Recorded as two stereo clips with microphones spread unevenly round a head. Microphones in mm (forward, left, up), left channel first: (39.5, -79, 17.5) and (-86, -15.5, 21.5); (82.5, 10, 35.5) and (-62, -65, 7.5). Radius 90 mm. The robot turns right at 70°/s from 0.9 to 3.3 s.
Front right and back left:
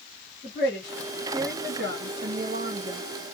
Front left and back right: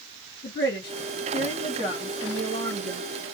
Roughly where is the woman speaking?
Left.